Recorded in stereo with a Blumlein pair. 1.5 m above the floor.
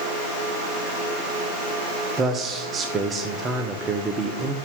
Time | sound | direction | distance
2.2 | a man speaking | 20° right | 0.9 m